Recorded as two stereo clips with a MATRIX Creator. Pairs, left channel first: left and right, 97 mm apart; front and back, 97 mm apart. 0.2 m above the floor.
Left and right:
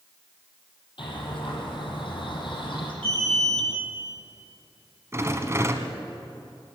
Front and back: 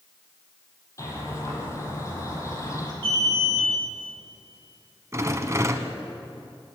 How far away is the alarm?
About 9.5 m.